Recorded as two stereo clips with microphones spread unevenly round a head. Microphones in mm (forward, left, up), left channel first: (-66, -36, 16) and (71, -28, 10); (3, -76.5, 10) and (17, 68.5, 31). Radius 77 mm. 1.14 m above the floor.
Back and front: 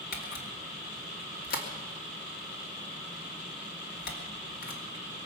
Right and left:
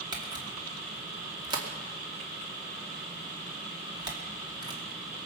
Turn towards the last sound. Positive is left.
turn(degrees=150)